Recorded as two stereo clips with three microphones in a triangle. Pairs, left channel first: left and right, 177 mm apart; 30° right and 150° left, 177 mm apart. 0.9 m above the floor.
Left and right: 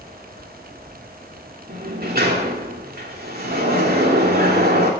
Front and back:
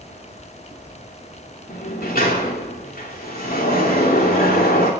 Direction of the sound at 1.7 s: 60° right.